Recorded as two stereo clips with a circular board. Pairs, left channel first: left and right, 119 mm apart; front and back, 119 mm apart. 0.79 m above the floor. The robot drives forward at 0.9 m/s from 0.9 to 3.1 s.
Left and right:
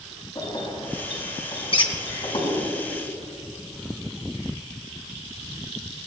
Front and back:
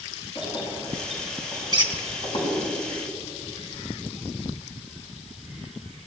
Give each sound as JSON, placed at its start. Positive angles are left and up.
{"t": 0.3, "sound": "keys jangling", "azimuth_deg": 40, "distance_m": 5.5}
{"t": 1.7, "sound": "a squeak", "azimuth_deg": 130, "distance_m": 1.5}